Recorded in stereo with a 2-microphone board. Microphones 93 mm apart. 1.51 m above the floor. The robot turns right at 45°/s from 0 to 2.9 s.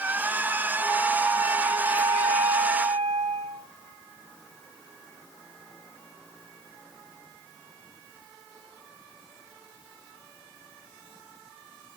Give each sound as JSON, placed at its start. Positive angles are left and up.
{"t": 0.8, "sound": "a flute", "azimuth_deg": -175, "distance_m": 5.0}